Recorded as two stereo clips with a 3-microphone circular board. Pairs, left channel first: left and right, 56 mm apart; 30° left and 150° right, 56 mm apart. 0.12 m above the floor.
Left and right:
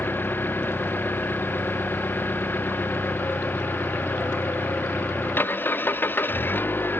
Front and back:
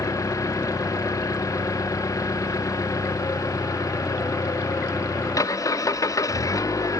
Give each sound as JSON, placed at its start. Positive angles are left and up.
{"t": 0.0, "sound": "an engine running", "azimuth_deg": 35}